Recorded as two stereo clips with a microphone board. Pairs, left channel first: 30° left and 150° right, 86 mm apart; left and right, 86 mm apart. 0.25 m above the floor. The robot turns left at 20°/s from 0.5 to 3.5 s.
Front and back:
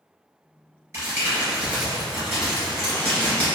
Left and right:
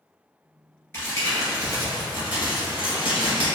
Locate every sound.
0.9 s crumpling: 155° left, 1.7 m; by 3.5 s 105° left, 1.7 m